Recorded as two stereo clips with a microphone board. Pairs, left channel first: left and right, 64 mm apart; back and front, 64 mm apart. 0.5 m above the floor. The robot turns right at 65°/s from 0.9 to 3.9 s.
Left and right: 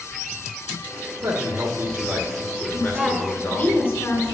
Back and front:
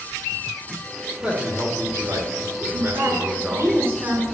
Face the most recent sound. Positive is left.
turn(degrees=55)